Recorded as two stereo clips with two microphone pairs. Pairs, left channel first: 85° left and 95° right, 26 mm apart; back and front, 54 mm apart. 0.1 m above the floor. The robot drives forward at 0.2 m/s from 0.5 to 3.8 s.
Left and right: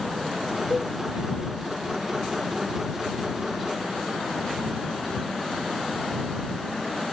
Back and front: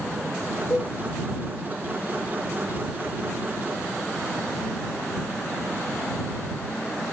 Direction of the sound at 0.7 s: 170° right.